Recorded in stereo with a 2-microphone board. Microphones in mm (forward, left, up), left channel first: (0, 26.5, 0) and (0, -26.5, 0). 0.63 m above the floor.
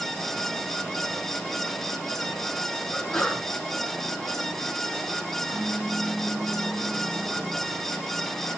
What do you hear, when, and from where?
2.9 s a sneeze: 25° left (ahead or behind), 9 m
5.5 s a pop: 65° left (ahead or behind), 3 m